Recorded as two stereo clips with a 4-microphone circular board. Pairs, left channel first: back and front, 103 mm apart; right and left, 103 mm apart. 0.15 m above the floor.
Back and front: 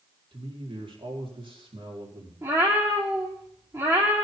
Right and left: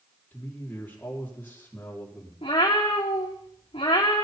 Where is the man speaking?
20° right, 5 m.